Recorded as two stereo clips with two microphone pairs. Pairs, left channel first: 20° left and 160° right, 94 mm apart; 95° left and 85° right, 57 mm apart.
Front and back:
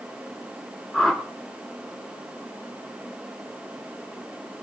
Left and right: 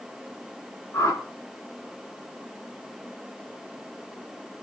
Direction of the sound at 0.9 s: 105° left.